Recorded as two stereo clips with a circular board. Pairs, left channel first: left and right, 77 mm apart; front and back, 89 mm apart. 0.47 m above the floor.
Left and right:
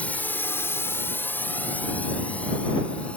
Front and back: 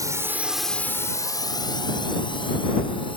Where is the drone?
155° left; by 3.2 s 15° left.